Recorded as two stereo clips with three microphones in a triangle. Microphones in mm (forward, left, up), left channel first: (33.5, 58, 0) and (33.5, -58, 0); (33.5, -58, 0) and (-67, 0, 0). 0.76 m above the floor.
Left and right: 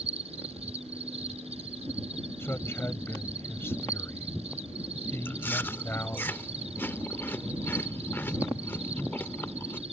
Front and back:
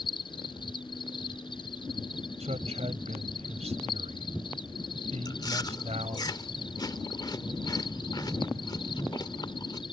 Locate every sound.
0.0 s an insect: 70° right
2.4 s a man speaking: 160° left
5.2 s chewing: 20° left